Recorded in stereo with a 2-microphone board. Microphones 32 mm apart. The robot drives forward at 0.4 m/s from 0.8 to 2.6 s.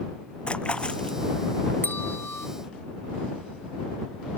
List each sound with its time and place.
0.5 s a splash: 30° left (ahead or behind)
1.8 s a bell: 80° left; by 2.5 s 75° left (ahead or behind)